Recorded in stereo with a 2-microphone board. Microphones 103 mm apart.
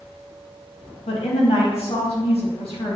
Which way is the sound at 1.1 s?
70° left (ahead or behind).